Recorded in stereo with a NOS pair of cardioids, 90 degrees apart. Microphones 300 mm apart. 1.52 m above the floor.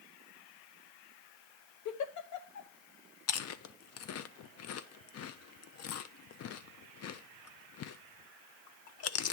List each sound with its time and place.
1.9 s a giggle: 65° left, 1.1 m
3.3 s chewing: 50° left, 0.6 m